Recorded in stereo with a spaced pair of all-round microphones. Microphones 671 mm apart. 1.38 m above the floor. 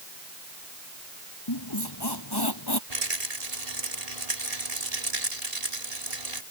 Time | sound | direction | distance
1.5 | a squeak | 35° left (ahead or behind) | ?
2.9 | a rattle | 65° right (ahead or behind) | ?